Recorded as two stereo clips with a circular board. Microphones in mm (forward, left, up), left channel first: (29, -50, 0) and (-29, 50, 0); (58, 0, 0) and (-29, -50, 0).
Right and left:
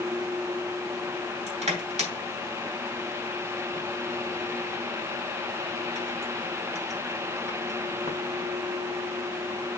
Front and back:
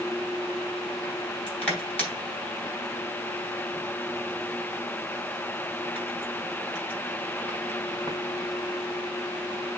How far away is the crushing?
About 4 m.